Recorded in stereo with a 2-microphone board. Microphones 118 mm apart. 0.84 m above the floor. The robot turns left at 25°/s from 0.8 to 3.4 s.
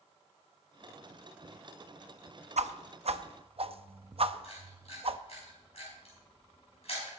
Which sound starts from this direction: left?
A camera shutter, at 4.4 s.